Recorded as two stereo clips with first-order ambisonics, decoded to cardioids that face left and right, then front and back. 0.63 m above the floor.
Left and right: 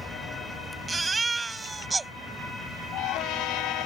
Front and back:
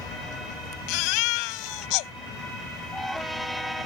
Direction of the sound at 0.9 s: 10° right.